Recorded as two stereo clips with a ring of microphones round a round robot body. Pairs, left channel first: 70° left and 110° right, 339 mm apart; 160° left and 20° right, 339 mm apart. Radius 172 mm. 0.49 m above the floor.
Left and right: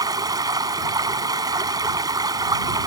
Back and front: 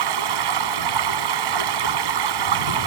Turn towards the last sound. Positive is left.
turn(degrees=-35)